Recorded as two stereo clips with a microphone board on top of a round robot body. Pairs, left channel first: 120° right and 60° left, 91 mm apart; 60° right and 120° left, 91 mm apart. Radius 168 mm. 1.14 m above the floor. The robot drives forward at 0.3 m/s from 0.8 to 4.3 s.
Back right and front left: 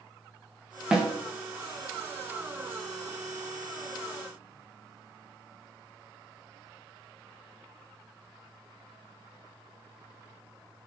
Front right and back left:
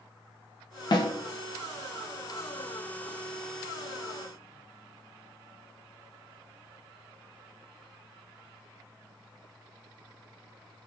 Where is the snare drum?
20° right, 0.5 m; by 1.1 s 25° right, 0.5 m.